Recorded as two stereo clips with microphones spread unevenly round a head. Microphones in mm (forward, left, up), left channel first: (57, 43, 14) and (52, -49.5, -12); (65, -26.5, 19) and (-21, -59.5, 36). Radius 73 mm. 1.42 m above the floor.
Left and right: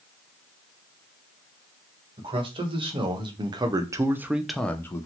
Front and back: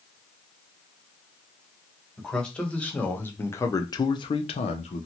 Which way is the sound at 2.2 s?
65° right.